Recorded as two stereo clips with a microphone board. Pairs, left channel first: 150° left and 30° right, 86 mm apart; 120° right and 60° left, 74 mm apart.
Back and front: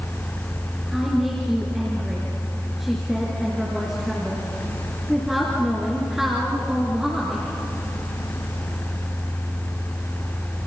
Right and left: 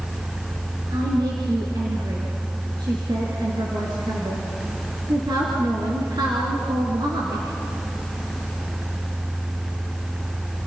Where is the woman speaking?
55° left, 4 m.